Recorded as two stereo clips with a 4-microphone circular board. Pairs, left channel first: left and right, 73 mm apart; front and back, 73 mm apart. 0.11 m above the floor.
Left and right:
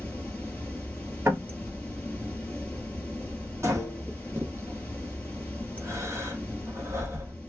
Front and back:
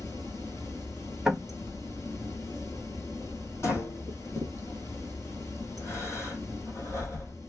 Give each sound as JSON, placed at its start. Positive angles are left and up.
{"t": 0.0, "sound": "running water", "azimuth_deg": 25, "distance_m": 1.1}
{"t": 1.2, "sound": "knocking", "azimuth_deg": -95, "distance_m": 1.0}
{"t": 3.6, "sound": "breathing", "azimuth_deg": -45, "distance_m": 1.3}